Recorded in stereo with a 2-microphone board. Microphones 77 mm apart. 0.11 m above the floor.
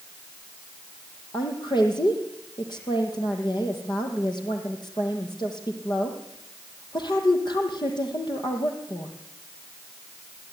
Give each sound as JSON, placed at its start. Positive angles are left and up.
{"t": 1.3, "sound": "a woman speaking", "side_deg": 70, "distance_m": 4.5}